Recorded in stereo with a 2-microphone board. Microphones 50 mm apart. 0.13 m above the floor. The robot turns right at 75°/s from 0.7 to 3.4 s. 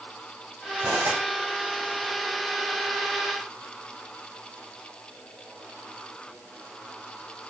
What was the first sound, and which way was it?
Cutlery clinking, 50° right.